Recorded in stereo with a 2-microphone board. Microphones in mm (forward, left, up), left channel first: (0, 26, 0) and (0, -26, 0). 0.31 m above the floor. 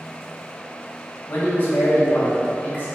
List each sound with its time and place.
1.3 s a man speaking: 40° left (ahead or behind), 1.8 m